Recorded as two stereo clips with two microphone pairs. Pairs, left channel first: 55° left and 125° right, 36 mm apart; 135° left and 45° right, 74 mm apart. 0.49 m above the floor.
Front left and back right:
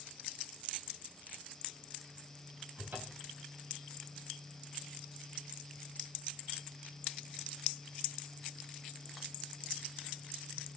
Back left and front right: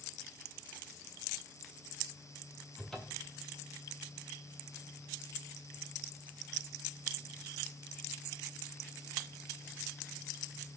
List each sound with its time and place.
2.8 s a cupboard door: 145° right, 3 m